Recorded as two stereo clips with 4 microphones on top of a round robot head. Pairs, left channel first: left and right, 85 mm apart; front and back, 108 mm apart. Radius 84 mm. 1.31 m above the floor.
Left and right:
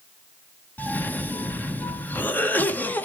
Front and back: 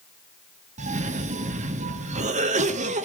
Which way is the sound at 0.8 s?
160° left.